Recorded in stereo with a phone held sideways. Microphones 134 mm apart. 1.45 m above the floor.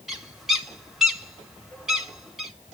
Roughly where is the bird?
Centre.